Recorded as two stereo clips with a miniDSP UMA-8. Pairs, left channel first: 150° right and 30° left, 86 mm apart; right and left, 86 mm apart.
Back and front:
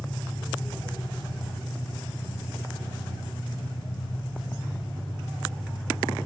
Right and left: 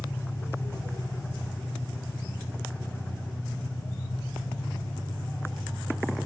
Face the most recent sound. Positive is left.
turn(degrees=-150)